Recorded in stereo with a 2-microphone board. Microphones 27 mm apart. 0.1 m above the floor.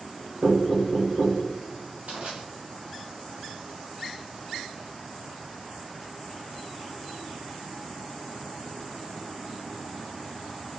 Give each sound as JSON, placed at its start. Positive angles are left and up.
{"t": 0.4, "sound": "knocking", "side_deg": -45, "distance_m": 2.0}
{"t": 2.1, "sound": "crushing", "side_deg": -65, "distance_m": 1.6}